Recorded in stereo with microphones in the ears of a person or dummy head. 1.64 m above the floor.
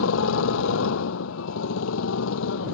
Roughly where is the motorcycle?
Left.